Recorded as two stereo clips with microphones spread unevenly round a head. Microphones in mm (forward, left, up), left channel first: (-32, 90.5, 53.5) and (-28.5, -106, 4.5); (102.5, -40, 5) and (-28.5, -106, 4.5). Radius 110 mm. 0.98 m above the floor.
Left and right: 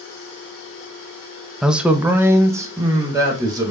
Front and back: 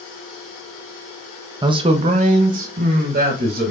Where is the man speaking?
145° right, 0.6 m; by 3.7 s 155° right, 2.0 m.